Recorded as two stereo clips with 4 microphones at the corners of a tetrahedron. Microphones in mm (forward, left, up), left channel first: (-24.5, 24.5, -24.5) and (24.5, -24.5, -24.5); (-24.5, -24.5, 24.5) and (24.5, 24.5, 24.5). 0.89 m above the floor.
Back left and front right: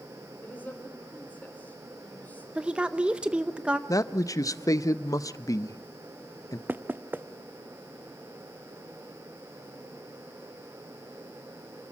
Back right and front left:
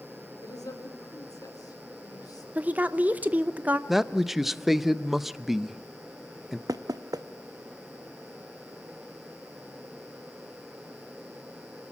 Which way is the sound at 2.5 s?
10° left.